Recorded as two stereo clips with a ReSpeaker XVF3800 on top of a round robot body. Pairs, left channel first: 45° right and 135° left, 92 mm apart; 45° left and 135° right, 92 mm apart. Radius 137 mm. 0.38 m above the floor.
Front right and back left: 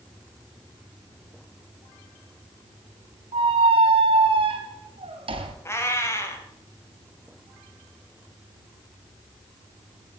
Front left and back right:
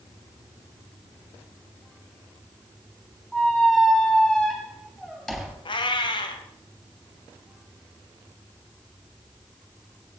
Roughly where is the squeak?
Behind left.